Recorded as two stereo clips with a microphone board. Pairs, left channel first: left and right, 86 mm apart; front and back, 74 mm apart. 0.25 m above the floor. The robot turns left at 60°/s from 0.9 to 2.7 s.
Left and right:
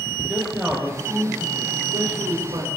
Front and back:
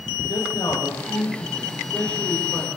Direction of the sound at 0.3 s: 15° right.